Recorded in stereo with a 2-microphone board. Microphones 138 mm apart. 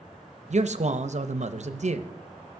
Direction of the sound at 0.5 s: 55° right (ahead or behind).